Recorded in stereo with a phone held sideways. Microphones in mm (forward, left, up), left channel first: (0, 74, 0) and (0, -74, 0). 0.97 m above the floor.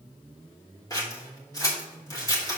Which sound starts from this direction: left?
Scissors, at 0.9 s.